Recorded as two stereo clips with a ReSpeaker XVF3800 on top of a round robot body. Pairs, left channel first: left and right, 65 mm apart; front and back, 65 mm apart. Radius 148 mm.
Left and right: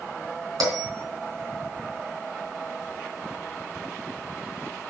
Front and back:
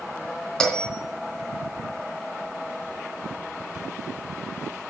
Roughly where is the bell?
Right.